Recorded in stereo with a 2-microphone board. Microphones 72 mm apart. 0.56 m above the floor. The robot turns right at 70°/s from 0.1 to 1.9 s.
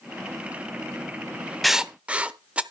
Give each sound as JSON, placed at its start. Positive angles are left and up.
{"t": 1.6, "sound": "writing", "side_deg": 0, "distance_m": 0.6}